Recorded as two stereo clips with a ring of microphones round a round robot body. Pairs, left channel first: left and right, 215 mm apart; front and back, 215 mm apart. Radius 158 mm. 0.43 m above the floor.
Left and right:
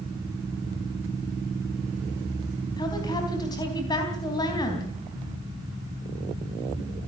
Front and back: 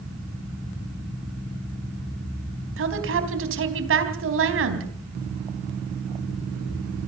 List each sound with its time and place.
2.8 s a woman speaking: 165° left, 3.5 m